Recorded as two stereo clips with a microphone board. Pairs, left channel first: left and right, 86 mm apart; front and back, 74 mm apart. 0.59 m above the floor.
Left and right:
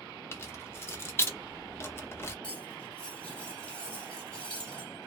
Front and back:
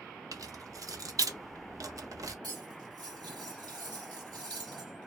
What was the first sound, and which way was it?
Keys jangling, 150° left.